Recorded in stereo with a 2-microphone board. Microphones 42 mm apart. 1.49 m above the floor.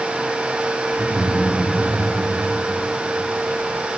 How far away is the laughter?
About 4 m.